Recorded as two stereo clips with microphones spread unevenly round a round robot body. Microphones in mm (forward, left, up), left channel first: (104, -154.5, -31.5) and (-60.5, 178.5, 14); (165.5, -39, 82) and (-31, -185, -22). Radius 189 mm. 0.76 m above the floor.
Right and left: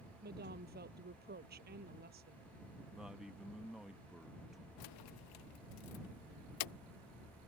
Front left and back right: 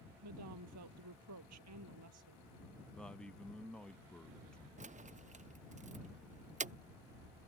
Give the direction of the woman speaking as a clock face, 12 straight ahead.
6 o'clock.